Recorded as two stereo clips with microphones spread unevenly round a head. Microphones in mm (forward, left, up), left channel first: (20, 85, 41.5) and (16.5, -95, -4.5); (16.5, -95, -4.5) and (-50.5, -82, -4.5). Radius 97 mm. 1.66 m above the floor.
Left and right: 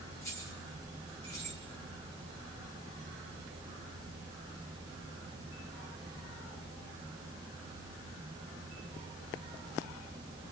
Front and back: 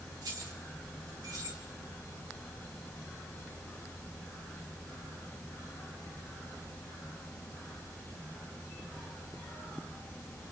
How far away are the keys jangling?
About 3.5 m.